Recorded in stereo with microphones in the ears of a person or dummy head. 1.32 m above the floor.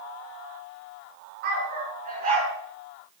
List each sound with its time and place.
1.4 s a dog barking: 55° right (ahead or behind), 5.5 m; by 2.5 s 45° right (ahead or behind), 5.5 m